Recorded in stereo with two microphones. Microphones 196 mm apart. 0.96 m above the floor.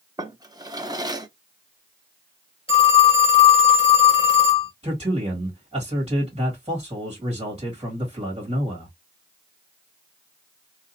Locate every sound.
0.2 s a drawer: 20° right (ahead or behind), 0.5 m
2.7 s a phone ringing: 30° left (ahead or behind), 2 m
4.8 s a man speaking: 30° right (ahead or behind), 1.6 m